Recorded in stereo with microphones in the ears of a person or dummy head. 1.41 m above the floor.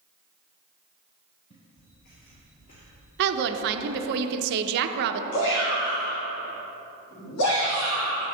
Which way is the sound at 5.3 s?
70° left (ahead or behind).